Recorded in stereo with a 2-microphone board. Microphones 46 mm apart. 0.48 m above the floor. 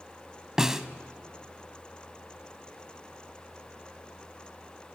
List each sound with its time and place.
0.6 s a snare drum: 10° right (ahead or behind), 0.7 m